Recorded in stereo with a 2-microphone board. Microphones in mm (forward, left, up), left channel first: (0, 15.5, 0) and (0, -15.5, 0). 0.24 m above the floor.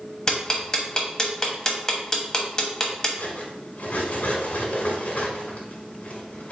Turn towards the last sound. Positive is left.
turn(degrees=60)  # may be behind; listen again after turning